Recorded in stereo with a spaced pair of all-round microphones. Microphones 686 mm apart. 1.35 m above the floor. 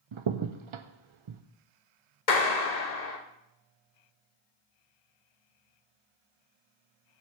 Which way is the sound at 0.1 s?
50° right (ahead or behind).